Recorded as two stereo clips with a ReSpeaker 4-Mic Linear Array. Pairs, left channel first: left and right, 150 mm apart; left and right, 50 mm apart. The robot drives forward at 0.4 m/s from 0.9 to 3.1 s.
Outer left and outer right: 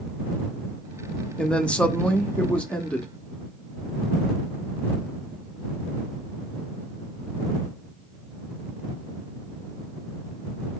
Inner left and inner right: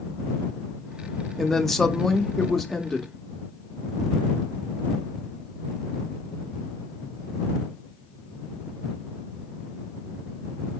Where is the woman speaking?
5° left (ahead or behind), 0.7 m.